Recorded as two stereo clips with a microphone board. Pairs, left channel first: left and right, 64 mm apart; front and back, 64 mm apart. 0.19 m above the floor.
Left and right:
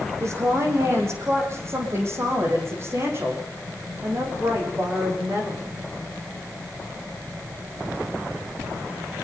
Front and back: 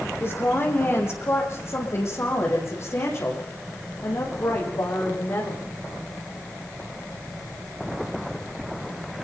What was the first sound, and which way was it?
A woman speaking, 50° right.